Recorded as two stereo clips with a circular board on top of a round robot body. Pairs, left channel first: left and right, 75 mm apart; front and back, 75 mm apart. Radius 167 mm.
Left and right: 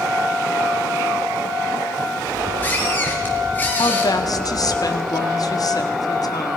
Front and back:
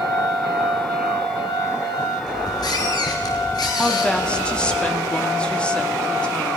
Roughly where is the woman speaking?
Left.